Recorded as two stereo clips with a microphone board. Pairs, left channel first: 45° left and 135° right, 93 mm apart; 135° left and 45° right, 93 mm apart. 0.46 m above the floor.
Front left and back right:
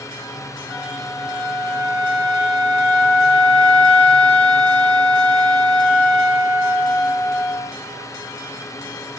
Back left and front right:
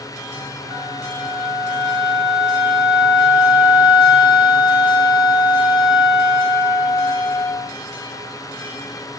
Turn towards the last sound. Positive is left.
turn(degrees=120)